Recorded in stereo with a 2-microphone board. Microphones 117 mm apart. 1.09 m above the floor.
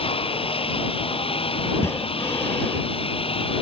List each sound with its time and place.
0.0 s a lawn mower: 55° left (ahead or behind)
1.7 s breathing: 20° left (ahead or behind)